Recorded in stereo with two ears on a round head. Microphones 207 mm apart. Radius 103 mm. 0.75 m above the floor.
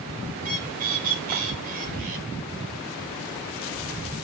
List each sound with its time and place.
0.4 s a bird: 40° right (ahead or behind), 2.5 m